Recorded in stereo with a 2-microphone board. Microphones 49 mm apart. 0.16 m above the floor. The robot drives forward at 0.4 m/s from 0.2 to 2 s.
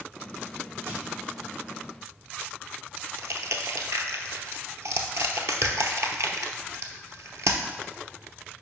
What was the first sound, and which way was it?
Crushing, 70° right (ahead or behind).